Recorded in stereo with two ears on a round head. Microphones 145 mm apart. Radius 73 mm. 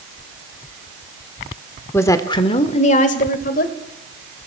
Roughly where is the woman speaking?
Centre.